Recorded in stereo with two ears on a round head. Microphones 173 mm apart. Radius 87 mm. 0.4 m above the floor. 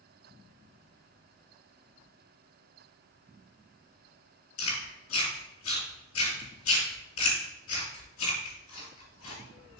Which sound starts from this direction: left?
Chewing, at 4.6 s.